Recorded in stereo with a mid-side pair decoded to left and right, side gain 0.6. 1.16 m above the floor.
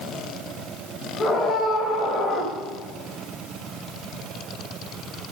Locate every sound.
1.2 s a scream: 30° left, 5 m